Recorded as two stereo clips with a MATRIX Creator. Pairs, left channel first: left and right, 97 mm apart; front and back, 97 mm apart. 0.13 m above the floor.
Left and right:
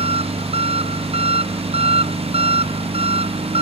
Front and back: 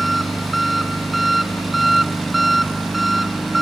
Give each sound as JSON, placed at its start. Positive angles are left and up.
{"t": 0.0, "sound": "an engine running", "azimuth_deg": -90}